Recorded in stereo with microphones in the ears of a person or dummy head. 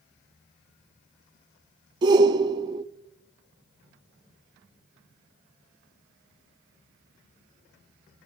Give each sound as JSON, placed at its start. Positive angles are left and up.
{"t": 2.0, "sound": "a shout", "side_deg": -25, "distance_m": 0.5}